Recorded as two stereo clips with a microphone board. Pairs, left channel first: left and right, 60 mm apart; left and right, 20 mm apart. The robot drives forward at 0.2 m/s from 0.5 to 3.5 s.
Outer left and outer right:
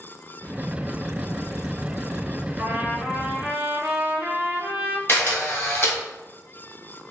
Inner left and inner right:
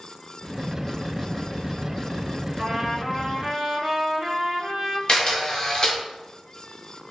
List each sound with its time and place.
2.6 s a trumpet: 40° right (ahead or behind), 0.7 m; by 5.0 s 30° right (ahead or behind), 0.9 m
5.1 s a camera shutter: 40° left (ahead or behind), 1.0 m